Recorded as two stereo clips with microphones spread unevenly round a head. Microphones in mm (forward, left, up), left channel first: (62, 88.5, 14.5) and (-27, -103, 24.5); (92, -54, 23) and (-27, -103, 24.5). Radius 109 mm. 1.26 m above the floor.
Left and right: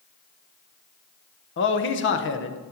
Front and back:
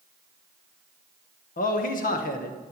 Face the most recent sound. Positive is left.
turn(degrees=35)